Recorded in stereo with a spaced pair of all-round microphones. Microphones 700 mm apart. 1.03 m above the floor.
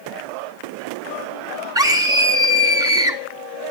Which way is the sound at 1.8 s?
5° right (ahead or behind).